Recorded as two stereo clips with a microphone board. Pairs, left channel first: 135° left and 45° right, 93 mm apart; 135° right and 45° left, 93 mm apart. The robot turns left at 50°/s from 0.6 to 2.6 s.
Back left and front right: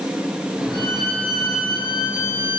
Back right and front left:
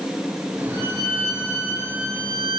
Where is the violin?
145° left, 4 m; by 2.6 s 55° left, 4 m.